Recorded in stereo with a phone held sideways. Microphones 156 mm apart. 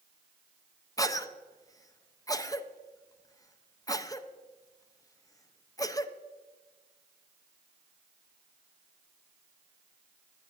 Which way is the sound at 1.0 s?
25° left (ahead or behind).